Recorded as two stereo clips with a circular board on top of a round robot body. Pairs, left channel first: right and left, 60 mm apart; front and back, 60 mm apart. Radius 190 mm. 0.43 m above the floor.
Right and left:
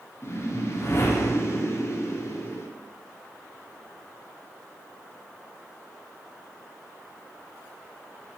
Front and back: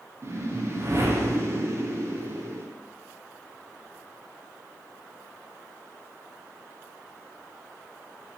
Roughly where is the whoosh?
Behind right.